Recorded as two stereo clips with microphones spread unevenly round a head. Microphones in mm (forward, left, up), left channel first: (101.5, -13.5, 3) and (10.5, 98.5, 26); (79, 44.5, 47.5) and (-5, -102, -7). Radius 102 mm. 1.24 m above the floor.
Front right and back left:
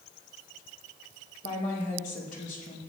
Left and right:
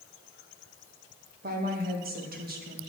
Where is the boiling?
I don't hear boiling.